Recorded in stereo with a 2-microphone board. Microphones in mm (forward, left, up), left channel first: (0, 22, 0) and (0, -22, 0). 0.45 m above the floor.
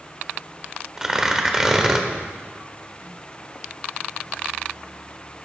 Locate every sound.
1.0 s tearing paper: 10° right (ahead or behind), 0.9 m